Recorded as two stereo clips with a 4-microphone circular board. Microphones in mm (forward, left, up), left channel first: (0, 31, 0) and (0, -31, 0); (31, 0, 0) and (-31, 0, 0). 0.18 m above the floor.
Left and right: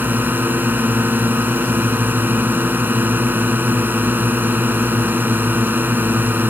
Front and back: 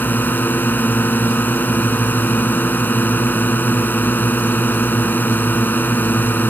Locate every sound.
0.0 s a drone: 45° right